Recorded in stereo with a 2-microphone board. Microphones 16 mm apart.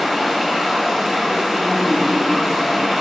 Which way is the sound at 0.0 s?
35° right (ahead or behind).